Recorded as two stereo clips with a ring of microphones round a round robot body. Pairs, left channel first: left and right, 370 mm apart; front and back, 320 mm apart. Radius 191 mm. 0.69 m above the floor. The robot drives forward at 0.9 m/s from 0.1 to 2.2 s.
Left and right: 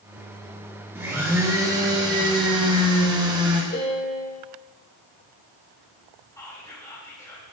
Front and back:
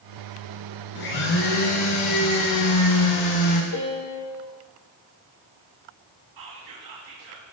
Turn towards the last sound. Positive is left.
turn(degrees=170)